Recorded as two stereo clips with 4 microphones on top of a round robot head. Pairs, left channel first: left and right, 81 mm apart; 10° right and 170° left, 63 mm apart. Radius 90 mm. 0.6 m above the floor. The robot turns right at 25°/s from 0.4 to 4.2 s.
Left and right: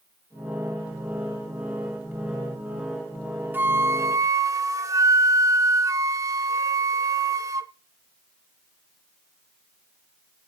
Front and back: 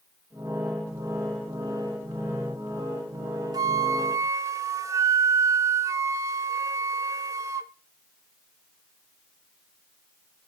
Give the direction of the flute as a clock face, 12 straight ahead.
5 o'clock.